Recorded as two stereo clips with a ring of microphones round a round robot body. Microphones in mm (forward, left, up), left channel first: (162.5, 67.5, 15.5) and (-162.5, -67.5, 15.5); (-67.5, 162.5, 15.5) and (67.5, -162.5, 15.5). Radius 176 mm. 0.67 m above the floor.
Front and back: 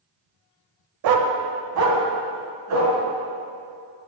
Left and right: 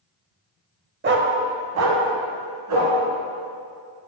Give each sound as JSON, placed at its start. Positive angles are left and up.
{"t": 1.0, "sound": "a dog barking", "azimuth_deg": -130, "distance_m": 0.7}